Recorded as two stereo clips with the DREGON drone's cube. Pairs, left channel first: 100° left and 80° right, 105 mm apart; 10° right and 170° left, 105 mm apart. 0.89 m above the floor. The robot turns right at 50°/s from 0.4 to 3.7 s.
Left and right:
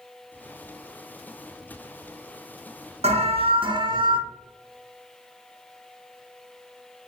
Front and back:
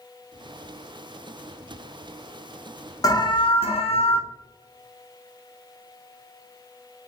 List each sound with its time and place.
3.0 s an alarm: 70° right, 0.5 m; by 4.2 s 35° right, 0.5 m